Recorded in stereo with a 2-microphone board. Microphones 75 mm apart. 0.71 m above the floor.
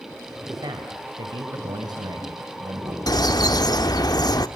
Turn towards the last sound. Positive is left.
turn(degrees=65)  # may be behind; listen again after turning